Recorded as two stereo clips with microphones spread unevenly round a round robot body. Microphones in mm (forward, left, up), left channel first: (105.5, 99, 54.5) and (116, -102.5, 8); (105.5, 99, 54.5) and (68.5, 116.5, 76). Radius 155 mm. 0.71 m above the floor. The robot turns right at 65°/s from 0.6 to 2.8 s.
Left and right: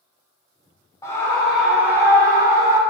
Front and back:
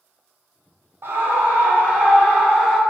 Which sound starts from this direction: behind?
A scream, at 1.0 s.